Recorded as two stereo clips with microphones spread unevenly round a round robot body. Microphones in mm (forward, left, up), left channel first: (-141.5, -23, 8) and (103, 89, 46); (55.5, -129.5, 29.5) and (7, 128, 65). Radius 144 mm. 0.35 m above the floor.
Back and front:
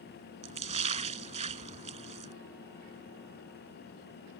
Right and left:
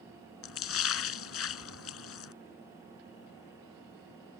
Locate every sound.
0.4 s a splash: 45° right